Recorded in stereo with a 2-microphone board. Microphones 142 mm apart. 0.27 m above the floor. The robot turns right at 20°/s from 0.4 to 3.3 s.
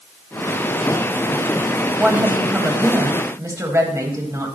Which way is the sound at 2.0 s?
10° right (ahead or behind).